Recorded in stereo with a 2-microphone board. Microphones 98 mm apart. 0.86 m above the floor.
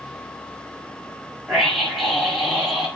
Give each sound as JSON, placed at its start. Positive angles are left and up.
{"t": 1.5, "sound": "a scream", "side_deg": 0, "distance_m": 6.5}